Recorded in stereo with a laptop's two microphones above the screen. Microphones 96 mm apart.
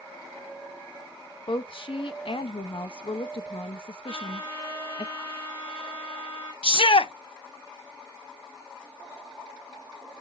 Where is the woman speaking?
65° left (ahead or behind), 1.0 m.